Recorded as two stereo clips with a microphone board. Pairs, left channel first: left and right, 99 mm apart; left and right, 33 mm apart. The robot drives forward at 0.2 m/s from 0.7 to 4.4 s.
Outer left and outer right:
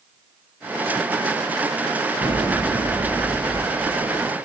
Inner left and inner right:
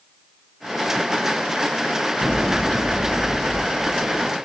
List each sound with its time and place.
2.2 s an explosion: 60° left (ahead or behind), 1.9 m; by 4.2 s 55° left (ahead or behind), 2 m